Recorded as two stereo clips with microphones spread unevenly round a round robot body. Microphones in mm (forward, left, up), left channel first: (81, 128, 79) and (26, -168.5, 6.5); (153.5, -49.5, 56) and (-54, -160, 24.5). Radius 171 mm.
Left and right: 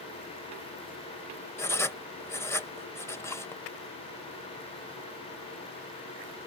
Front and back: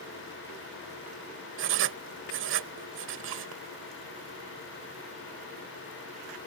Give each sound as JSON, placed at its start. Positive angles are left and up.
{"t": 1.6, "sound": "writing", "azimuth_deg": 165}